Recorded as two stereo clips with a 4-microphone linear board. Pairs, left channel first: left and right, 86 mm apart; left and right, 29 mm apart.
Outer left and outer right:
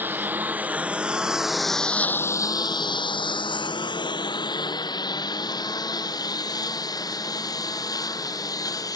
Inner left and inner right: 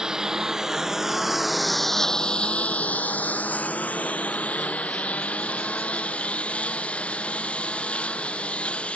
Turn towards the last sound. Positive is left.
turn(degrees=50)  # may be behind; listen again after turning